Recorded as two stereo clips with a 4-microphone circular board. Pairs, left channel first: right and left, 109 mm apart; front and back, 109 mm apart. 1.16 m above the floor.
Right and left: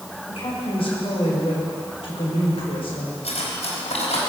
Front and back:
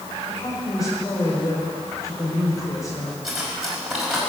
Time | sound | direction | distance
0.3 | a woman speaking | 60° right | 5 m
3.2 | cutlery clinking | 95° right | 4.5 m